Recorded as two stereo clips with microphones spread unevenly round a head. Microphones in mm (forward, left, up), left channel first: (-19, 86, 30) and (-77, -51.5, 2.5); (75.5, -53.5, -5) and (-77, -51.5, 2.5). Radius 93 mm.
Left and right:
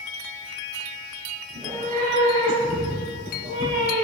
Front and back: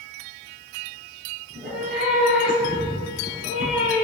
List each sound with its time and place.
1.5 s a cat meowing: 165° right, 6.5 m; by 4.0 s 145° right, 8.5 m